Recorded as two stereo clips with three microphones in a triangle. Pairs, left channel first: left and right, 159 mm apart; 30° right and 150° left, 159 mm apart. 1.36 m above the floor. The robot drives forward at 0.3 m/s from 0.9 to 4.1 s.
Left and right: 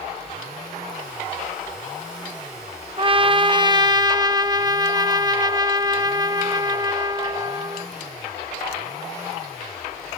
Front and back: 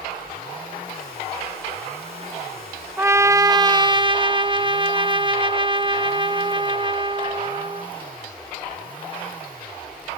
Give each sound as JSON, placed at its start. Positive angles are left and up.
{"t": 3.0, "sound": "a trumpet", "azimuth_deg": -135}